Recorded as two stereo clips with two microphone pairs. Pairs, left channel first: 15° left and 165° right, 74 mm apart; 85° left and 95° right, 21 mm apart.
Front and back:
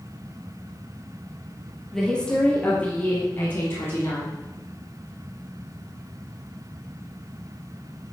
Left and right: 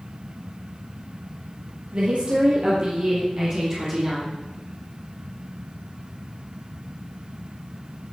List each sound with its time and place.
1.9 s a woman speaking: 65° right, 4 m; by 4.3 s 35° right, 5.5 m